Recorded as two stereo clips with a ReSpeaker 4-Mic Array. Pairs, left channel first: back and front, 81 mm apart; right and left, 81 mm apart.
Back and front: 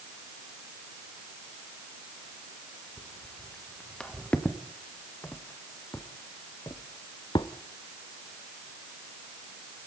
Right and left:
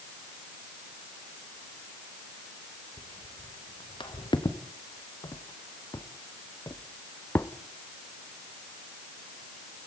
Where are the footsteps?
95° right, 3 m; by 7.5 s 155° right, 1.1 m.